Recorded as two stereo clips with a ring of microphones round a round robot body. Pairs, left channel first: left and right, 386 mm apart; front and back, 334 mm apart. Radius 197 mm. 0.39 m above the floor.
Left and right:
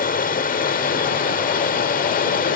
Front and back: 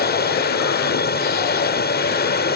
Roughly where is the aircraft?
Ahead left.